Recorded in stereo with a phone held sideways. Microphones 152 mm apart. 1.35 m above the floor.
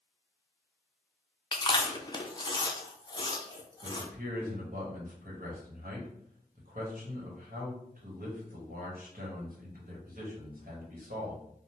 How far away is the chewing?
About 0.5 m.